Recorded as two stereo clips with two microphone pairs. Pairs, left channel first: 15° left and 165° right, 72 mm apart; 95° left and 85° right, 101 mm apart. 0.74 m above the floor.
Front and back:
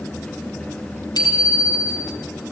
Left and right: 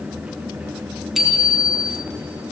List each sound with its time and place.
1.1 s a bicycle bell: 5° left, 5 m